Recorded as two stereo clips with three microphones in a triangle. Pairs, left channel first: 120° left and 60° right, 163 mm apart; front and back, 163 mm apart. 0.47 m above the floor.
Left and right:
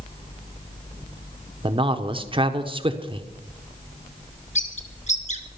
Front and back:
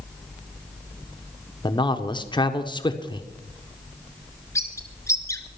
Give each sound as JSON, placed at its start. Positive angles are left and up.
{"t": 1.6, "sound": "a man speaking", "azimuth_deg": -35, "distance_m": 1.0}
{"t": 4.5, "sound": "a bird", "azimuth_deg": 75, "distance_m": 1.5}